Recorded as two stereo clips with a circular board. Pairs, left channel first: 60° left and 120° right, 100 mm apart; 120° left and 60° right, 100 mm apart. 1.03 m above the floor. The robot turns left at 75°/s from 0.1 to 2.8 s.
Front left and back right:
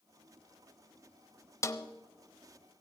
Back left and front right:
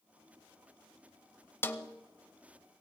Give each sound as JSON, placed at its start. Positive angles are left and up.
{"t": 1.6, "sound": "a snare drum", "azimuth_deg": 75, "distance_m": 0.9}